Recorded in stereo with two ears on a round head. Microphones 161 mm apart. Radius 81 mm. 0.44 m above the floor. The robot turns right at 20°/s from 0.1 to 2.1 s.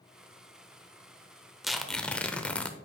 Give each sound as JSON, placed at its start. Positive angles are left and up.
{"t": 1.6, "sound": "tearing paper", "side_deg": 0, "distance_m": 0.6}